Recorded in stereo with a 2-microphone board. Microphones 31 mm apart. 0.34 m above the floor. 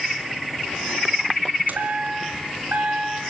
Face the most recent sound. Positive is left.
turn(degrees=-65)  # may be behind; listen again after turning